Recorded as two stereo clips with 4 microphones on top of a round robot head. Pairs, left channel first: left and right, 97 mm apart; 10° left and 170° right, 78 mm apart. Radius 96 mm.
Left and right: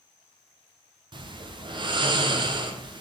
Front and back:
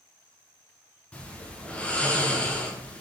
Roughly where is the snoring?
Ahead right.